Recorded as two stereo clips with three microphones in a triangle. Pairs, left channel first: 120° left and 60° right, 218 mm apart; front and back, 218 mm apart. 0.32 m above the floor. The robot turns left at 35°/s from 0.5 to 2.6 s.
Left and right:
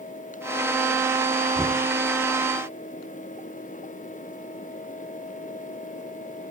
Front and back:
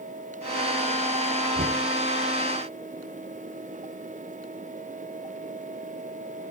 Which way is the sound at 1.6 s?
150° right.